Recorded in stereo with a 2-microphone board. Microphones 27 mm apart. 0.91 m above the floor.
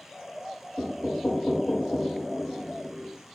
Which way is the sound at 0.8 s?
15° left (ahead or behind).